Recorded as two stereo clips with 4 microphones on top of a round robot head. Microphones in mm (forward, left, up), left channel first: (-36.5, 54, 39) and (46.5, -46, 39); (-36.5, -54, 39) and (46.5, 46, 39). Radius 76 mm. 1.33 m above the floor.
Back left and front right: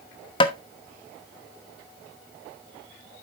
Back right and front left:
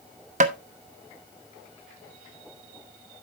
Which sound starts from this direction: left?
Tapping, at 0.4 s.